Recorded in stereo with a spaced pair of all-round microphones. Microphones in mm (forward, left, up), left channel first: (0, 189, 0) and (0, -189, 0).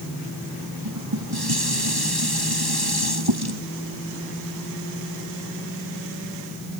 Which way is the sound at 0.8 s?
75° right (ahead or behind).